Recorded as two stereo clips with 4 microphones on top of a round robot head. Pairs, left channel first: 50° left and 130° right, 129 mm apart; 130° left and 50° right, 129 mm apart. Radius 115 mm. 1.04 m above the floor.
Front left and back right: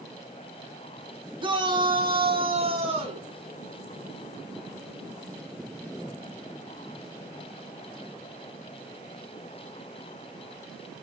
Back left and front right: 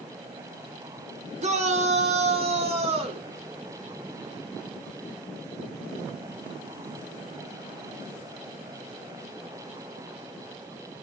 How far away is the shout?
About 3.5 m.